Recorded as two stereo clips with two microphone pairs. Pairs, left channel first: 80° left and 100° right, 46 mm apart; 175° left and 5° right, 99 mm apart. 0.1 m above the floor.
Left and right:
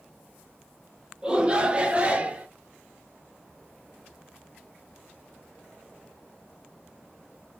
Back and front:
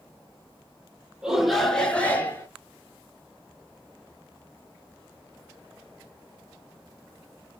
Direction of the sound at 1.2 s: 70° right.